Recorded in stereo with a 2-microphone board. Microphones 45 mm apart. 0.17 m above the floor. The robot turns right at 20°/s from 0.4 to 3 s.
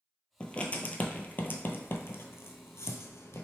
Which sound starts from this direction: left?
Writing, at 0.4 s.